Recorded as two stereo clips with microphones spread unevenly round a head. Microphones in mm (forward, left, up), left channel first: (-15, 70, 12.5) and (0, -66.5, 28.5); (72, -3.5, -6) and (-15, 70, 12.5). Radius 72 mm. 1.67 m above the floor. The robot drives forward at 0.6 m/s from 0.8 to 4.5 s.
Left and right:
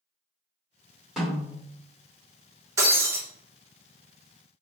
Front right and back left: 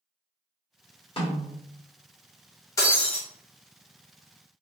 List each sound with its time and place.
1.2 s a snare drum: straight ahead, 2 m; by 1.6 s 5° left, 1.8 m
2.8 s breaking glass: 95° right, 1.0 m; by 3.2 s 125° right, 1.1 m